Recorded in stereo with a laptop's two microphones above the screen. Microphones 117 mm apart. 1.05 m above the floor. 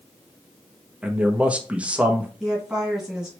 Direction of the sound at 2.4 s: 5° right (ahead or behind).